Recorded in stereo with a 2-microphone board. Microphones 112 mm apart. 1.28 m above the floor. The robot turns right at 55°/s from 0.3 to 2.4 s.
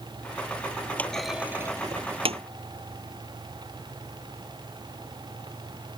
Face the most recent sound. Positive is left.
turn(degrees=-65)  # may be behind; listen again after turning